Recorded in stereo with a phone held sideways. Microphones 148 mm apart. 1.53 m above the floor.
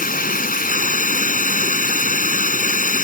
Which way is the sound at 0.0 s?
70° left (ahead or behind).